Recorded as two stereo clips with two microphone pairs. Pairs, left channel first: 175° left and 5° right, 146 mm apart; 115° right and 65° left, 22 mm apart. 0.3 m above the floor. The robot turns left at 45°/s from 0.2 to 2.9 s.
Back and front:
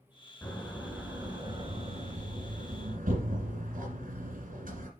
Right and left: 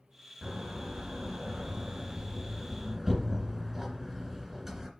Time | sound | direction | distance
0.4 | a door slam | 95° left | 2 m